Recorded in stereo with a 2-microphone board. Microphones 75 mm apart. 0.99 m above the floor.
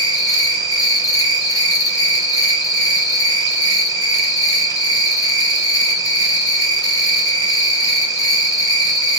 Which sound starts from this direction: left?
An insect, at 0.0 s.